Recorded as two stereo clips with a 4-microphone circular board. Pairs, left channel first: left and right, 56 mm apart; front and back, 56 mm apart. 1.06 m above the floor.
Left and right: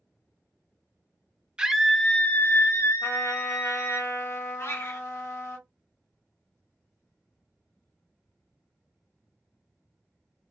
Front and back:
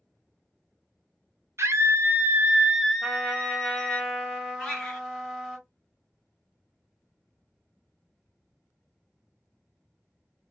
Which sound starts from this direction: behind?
A scream, at 1.6 s.